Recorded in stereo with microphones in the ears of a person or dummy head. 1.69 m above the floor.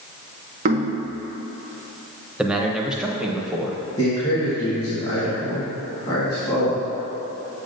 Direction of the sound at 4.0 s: 35° left (ahead or behind).